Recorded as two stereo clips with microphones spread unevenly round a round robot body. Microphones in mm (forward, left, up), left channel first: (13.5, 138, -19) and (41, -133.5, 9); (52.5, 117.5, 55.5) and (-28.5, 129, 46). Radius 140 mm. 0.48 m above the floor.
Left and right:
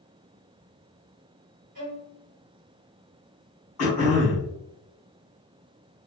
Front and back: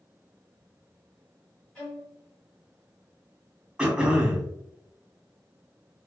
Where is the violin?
85° right, 1.2 m.